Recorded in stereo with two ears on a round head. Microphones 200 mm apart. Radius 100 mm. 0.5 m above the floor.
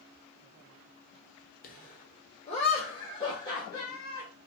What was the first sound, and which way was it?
Laughter, 40° left (ahead or behind).